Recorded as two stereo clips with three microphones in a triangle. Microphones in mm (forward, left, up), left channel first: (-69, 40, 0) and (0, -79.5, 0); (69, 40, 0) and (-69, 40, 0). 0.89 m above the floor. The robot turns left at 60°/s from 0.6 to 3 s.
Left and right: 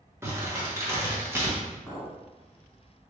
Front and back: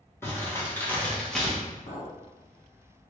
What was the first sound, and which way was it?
Crumpling, 35° right.